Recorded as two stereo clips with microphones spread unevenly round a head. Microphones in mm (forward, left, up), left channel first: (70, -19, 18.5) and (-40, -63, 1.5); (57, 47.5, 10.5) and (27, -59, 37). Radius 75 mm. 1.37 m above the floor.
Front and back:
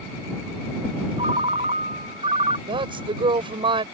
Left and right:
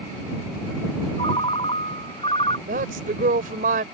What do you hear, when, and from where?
1.2 s a ringtone: 145° left
2.7 s a woman speaking: 110° right